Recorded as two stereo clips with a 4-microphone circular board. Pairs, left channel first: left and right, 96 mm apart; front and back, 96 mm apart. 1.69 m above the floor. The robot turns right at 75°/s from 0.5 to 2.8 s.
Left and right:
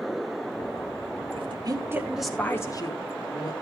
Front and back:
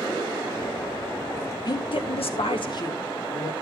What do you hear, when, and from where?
1.4 s a woman speaking: 65° right, 2 m; by 3.5 s 40° left, 2 m